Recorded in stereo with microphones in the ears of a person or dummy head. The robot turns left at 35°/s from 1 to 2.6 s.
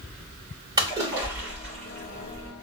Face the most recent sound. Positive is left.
turn(degrees=145)